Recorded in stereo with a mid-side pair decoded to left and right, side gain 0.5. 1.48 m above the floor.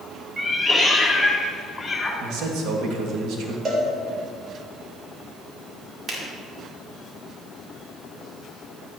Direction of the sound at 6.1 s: 45° right.